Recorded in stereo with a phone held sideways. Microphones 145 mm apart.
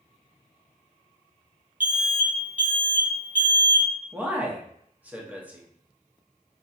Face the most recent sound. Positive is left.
turn(degrees=-10)  # may be behind; listen again after turning